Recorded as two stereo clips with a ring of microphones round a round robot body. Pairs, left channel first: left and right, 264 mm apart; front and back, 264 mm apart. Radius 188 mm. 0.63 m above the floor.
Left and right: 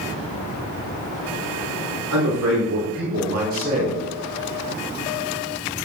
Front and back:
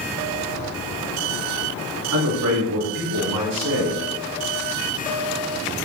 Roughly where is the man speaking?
Behind right.